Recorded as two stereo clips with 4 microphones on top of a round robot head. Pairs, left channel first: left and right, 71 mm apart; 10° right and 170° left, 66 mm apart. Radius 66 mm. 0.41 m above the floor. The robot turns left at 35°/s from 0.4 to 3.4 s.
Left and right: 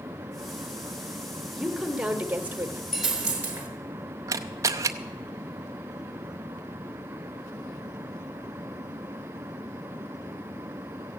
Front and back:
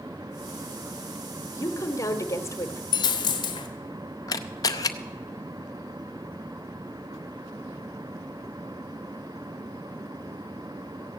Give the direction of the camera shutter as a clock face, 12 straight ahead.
1 o'clock.